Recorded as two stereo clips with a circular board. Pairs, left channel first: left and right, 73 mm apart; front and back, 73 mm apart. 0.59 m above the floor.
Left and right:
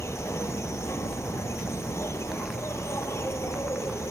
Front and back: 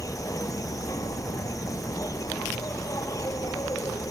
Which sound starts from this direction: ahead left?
An insect, at 0.0 s.